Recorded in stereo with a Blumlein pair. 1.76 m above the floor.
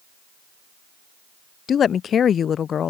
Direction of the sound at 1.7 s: 25° left.